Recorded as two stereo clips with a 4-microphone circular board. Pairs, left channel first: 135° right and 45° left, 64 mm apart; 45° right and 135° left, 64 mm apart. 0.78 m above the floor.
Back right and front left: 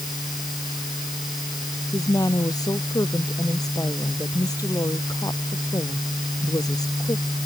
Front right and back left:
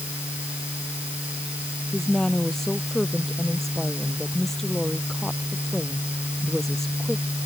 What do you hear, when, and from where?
1.9 s a woman speaking: 130° right